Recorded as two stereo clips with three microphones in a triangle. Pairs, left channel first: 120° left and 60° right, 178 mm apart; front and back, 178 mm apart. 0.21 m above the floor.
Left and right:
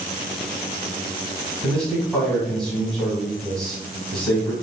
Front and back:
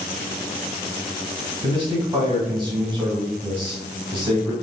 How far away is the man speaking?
About 1.1 m.